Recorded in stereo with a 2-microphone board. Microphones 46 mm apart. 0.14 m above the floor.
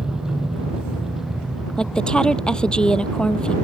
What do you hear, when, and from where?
0.0 s a helicopter: 10° right (ahead or behind); by 3.6 s centre (ahead or behind)
1.8 s a woman speaking: 20° left (ahead or behind)